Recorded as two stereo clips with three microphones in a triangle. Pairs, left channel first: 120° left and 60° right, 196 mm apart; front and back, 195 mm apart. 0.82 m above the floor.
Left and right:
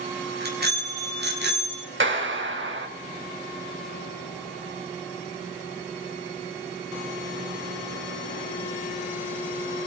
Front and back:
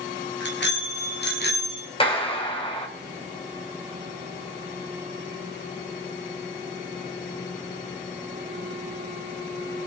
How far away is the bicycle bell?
About 5.5 m.